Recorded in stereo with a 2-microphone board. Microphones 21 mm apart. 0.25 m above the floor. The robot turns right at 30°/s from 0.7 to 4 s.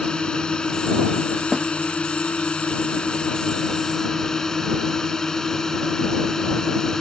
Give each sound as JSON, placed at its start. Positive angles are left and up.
{"t": 0.0, "sound": "a drone", "azimuth_deg": 45}
{"t": 1.5, "sound": "a snare drum", "side_deg": -35}